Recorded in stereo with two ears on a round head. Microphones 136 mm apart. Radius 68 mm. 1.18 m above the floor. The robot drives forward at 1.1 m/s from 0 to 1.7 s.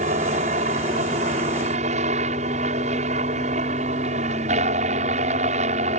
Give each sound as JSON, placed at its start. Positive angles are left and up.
{"t": 0.0, "sound": "a helicopter", "side_deg": -50}